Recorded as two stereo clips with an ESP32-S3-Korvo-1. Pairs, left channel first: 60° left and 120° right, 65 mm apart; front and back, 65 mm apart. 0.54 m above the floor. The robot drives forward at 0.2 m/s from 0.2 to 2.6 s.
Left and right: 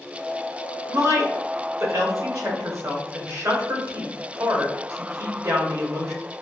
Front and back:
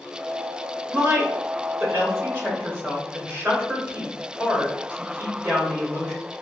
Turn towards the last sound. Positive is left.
turn(degrees=-130)